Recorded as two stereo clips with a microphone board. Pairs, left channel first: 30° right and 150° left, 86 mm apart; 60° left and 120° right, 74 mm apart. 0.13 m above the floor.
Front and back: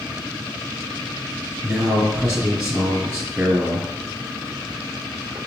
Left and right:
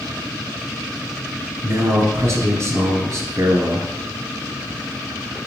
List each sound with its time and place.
1.6 s a man speaking: 135° right, 2 m